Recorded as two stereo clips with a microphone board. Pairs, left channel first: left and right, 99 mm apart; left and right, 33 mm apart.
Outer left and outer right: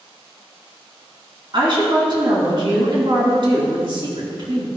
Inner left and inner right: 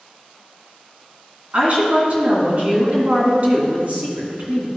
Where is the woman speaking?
55° right (ahead or behind), 2 m.